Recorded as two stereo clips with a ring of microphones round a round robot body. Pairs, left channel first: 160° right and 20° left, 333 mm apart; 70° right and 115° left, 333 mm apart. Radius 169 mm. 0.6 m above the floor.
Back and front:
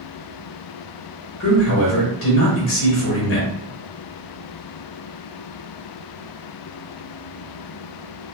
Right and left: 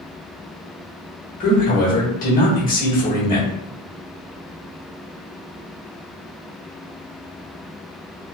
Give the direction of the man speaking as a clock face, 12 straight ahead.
4 o'clock.